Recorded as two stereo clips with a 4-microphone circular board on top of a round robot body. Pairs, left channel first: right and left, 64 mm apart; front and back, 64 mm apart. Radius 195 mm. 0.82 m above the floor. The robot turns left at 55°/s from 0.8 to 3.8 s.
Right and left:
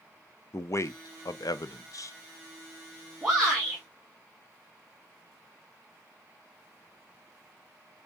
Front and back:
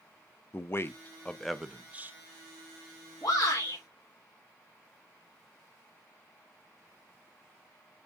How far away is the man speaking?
About 0.6 m.